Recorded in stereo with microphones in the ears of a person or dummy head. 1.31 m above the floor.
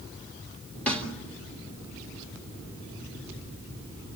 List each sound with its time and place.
0.9 s a snare drum: 5° left (ahead or behind), 1.8 m